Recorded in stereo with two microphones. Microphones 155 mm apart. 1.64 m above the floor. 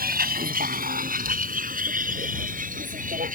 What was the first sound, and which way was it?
A vehicle, 75° right (ahead or behind).